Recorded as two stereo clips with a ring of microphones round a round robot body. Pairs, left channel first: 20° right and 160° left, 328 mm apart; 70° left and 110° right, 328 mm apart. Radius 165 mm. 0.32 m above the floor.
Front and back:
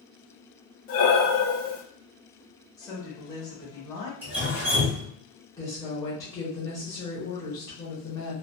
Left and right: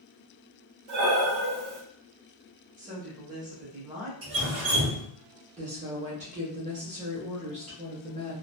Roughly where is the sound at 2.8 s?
Right.